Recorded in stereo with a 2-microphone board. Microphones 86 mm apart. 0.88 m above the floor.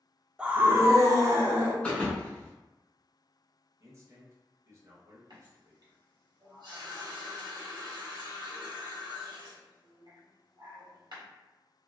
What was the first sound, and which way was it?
A scream, 10° right (ahead or behind).